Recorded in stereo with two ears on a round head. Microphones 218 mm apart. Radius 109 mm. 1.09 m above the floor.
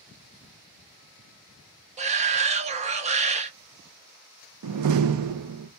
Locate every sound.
2.0 s a shout: 25° right (ahead or behind), 0.8 m
4.6 s a door slam: 70° right (ahead or behind), 0.6 m